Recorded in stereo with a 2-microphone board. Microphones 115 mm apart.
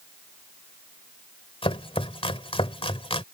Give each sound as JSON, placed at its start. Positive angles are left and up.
{"t": 1.6, "sound": "chopping", "side_deg": 55}